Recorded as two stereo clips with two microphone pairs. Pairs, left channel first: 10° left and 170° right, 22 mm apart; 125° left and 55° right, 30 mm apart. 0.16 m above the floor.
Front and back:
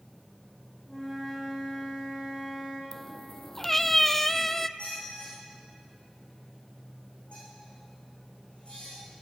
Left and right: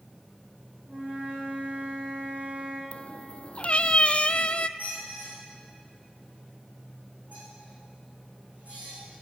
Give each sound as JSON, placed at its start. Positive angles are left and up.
{"t": 0.9, "sound": "a flute", "azimuth_deg": -80, "distance_m": 9.0}
{"t": 2.9, "sound": "a cat meowing", "azimuth_deg": 80, "distance_m": 0.5}
{"t": 4.8, "sound": "a squeak", "azimuth_deg": -20, "distance_m": 9.0}